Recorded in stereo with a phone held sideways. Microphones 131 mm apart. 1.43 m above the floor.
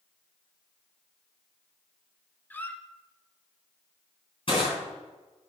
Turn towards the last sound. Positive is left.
turn(degrees=45)  # may be behind; listen again after turning